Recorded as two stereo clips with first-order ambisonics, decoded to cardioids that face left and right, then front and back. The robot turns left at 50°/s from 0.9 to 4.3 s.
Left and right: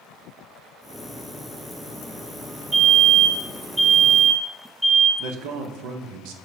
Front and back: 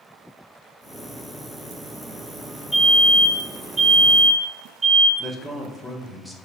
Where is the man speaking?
90° right, 0.7 m.